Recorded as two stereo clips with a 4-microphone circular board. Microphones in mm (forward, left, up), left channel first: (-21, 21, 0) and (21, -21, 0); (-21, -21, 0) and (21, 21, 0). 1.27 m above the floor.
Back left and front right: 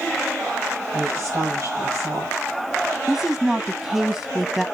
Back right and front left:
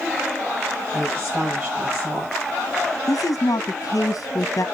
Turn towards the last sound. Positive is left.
turn(degrees=-135)